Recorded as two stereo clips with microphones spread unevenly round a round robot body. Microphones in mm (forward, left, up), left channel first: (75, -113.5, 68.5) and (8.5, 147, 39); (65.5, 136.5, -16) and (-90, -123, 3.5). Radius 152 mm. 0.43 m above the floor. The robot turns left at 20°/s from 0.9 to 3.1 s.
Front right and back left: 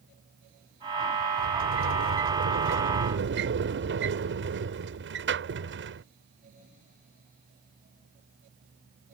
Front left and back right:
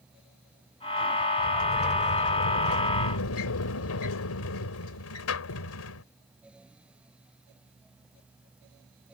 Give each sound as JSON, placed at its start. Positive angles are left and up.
{"t": 1.4, "sound": "a sliding door", "azimuth_deg": 115}